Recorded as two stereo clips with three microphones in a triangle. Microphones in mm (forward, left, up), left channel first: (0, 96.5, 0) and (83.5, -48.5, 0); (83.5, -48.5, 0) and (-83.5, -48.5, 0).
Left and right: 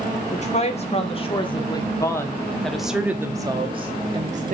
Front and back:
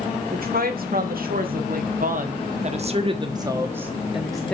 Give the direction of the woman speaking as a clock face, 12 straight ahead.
7 o'clock.